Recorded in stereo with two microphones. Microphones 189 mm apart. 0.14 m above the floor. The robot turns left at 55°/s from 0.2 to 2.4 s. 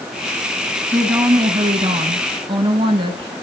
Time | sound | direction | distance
0.9 | a woman speaking | 15° right (ahead or behind) | 1.6 m